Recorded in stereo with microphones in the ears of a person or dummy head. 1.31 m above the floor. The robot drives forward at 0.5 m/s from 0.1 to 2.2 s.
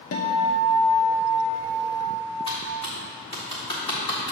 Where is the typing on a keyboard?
20° left (ahead or behind), 1.1 m.